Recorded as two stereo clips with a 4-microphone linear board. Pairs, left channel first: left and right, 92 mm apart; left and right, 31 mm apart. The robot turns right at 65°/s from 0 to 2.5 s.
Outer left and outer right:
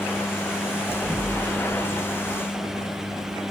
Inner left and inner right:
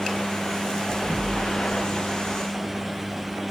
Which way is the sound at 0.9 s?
45° right (ahead or behind).